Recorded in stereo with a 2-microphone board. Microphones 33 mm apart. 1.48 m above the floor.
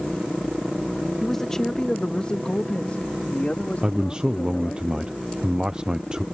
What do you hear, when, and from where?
1.2 s a man speaking: 10° left (ahead or behind); by 4.8 s 50° left (ahead or behind)
3.8 s a man speaking: 25° right (ahead or behind)